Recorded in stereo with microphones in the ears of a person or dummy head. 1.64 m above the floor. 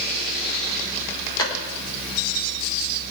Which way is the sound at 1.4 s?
20° left (ahead or behind).